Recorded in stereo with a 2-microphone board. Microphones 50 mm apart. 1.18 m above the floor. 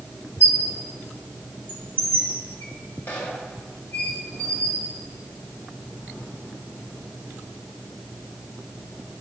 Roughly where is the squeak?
Left.